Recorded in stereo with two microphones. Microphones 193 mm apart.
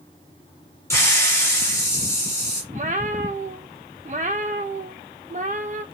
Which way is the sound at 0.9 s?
15° left (ahead or behind).